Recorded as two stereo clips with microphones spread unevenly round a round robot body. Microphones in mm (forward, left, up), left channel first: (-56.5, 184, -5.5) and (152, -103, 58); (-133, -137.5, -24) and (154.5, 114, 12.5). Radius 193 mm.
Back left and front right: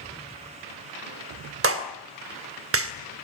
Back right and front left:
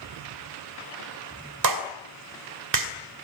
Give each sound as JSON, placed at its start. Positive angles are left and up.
{"t": 1.6, "sound": "a clap", "azimuth_deg": 0, "distance_m": 2.5}